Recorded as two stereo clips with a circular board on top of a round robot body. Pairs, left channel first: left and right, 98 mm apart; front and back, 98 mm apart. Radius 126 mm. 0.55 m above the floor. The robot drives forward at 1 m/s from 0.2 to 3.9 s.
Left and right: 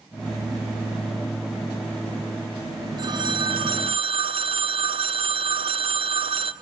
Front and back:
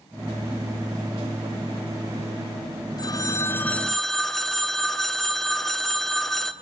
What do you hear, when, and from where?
3.0 s a phone ringing: 45° right, 1.5 m; by 6.5 s 85° right, 1.2 m